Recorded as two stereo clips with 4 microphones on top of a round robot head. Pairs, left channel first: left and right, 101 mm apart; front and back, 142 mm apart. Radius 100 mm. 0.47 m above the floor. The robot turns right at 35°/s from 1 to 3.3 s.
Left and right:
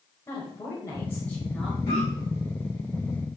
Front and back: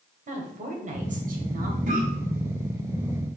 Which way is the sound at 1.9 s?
155° left.